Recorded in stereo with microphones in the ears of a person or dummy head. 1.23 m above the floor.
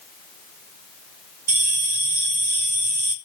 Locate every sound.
1.5 s a bell: 40° right (ahead or behind), 3.5 m